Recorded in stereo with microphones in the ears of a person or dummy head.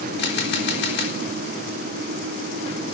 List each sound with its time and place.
0.2 s a camera shutter: 60° left (ahead or behind), 4 m